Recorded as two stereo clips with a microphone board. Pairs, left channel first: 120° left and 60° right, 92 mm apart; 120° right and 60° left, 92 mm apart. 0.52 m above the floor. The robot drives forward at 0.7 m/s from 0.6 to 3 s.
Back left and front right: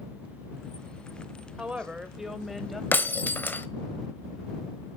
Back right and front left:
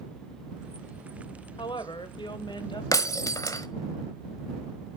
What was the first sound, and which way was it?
A woman speaking, 135° right.